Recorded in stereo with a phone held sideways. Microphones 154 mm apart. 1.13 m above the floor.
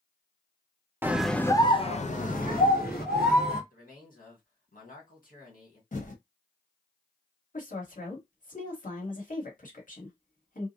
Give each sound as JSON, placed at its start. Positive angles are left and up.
{"t": 1.0, "sound": "a scream", "side_deg": -15, "distance_m": 0.5}
{"t": 3.7, "sound": "a man speaking", "side_deg": 65, "distance_m": 1.5}
{"t": 5.9, "sound": "typing on a keyboard", "side_deg": 55, "distance_m": 0.9}
{"t": 7.5, "sound": "a woman speaking", "side_deg": 60, "distance_m": 1.4}